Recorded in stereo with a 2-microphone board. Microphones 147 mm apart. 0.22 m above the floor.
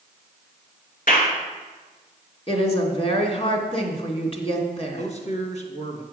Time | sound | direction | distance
1.1 | a clap | 70° left (ahead or behind) | 2.5 m
2.5 | a woman speaking | 40° left (ahead or behind) | 2 m
5.0 | a man speaking | 50° left (ahead or behind) | 2.0 m